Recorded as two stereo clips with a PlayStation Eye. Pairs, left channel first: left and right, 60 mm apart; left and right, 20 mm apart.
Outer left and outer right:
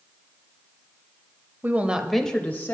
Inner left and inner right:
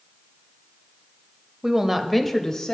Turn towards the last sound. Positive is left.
turn(degrees=40)  # may be behind; listen again after turning